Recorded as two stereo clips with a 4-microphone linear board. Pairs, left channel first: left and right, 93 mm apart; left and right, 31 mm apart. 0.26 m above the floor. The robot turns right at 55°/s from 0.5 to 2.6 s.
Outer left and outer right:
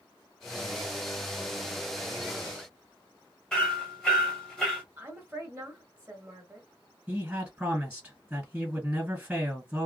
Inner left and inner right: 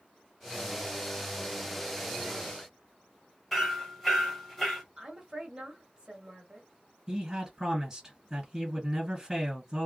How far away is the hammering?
About 1.0 m.